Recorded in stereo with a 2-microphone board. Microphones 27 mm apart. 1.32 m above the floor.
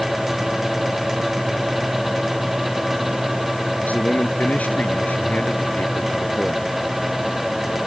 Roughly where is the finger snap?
No finger snap in this recording.